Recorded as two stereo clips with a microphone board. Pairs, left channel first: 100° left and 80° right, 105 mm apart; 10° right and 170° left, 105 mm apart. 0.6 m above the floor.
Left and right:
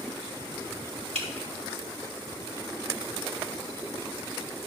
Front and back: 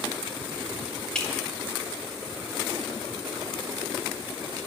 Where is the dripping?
95° right, 2.5 m.